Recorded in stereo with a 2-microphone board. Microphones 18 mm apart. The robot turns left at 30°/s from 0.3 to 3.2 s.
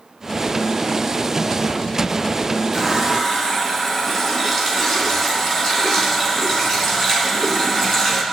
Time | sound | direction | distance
2.7 | a running tap | centre (ahead or behind) | 3.5 m